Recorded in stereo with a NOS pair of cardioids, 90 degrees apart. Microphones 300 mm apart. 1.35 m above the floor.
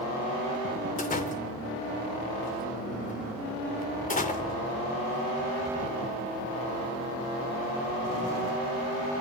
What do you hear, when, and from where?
1.0 s a door slam: 25° left, 3 m